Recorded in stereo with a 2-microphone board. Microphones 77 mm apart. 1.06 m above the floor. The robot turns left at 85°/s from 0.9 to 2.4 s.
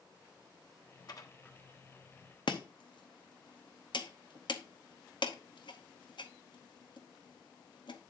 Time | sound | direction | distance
1.1 | dishes clattering | 55° left (ahead or behind) | 1.1 m
2.5 | chopping | 70° left (ahead or behind) | 0.9 m